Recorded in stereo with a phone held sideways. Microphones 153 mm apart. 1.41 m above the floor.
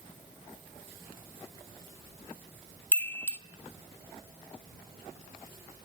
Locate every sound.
2.9 s a chime: 10° left (ahead or behind), 0.6 m